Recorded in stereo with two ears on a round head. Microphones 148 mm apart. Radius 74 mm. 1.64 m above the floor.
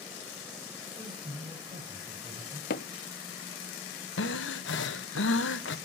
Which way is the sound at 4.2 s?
85° left.